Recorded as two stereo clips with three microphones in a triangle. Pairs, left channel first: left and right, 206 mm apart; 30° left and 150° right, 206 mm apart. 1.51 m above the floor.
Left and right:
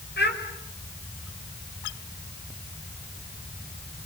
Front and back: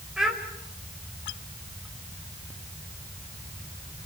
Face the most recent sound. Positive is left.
turn(degrees=120)